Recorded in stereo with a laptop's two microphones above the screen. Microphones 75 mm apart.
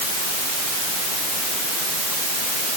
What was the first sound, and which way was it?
Only background noise.